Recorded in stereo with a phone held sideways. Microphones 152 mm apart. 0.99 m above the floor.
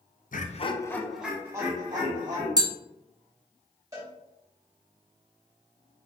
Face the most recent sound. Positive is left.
turn(degrees=-20)  # may be behind; listen again after turning